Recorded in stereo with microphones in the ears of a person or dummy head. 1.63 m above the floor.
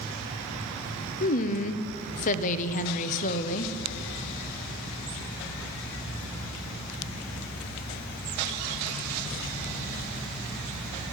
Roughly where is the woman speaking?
Left.